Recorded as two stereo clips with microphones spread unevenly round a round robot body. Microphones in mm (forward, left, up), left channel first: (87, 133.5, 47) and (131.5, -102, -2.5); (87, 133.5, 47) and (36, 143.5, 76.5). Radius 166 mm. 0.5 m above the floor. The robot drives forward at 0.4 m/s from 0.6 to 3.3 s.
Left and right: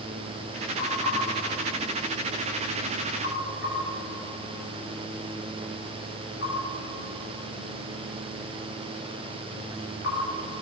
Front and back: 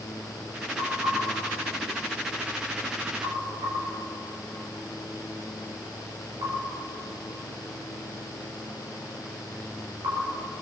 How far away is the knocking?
About 5 m.